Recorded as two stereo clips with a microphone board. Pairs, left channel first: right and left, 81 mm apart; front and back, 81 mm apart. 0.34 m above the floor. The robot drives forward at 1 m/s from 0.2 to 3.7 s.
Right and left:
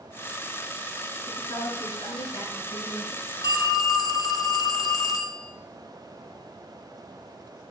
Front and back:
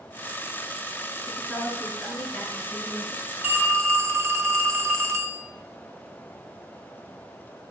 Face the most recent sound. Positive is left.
turn(degrees=-125)